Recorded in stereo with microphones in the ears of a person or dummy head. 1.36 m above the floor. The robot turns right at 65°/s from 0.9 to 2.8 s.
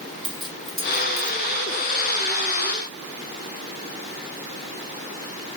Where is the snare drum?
I don't hear a snare drum.